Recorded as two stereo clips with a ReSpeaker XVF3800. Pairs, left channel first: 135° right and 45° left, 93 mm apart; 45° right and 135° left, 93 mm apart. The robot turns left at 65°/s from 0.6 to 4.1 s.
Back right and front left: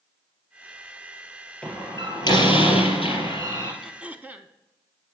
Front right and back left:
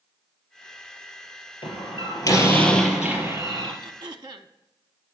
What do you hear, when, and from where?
1.6 s a door slam: 60° right, 3.5 m; by 3.7 s 165° left, 3.5 m
3.8 s throat clearing: 130° left, 0.6 m; by 4.5 s 115° left, 0.6 m